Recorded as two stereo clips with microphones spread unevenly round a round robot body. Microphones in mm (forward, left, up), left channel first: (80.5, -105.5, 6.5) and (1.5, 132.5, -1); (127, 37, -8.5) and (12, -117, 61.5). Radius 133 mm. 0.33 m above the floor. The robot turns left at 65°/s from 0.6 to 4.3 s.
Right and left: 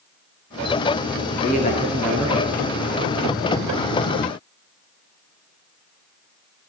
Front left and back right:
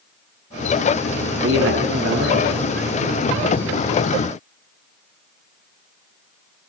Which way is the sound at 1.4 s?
125° right.